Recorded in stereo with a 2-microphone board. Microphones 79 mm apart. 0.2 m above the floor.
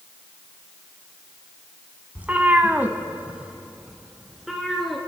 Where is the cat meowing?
20° right (ahead or behind), 1.0 m; by 5.0 s centre (ahead or behind), 2 m.